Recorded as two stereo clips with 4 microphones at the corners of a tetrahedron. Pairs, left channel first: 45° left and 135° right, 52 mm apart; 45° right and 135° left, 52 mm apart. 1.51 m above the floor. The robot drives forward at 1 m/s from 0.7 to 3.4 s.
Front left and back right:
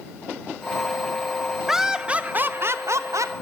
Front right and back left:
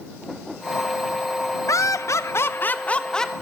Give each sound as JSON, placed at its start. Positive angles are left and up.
{"t": 1.7, "sound": "laughter", "azimuth_deg": -50, "distance_m": 1.4}